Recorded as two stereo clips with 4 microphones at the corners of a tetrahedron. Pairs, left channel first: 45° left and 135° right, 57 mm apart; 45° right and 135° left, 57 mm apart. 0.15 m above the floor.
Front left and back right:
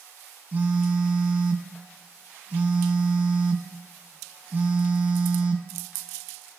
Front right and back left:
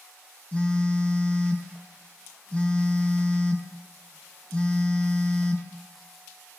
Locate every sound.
0.5 s a phone buzzing: 100° right, 1.5 m